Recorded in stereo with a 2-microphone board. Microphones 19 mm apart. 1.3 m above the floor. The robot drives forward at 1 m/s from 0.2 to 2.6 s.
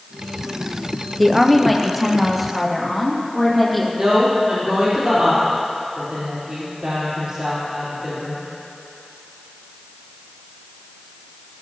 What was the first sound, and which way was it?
A woman speaking, centre (ahead or behind).